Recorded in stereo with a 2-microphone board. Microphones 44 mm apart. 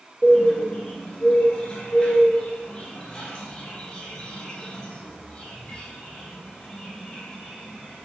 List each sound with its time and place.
0.2 s a bird: 20° left (ahead or behind), 1.4 m